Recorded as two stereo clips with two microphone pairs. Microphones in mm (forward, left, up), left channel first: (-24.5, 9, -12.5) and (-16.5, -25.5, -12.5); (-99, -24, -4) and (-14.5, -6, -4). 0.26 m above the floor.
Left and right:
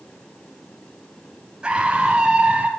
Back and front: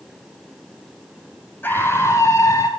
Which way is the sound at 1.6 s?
120° right.